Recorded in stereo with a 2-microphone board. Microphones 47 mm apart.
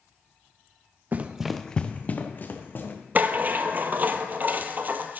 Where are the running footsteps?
35° right (ahead or behind), 0.8 m; by 2.9 s 50° left (ahead or behind), 2.5 m.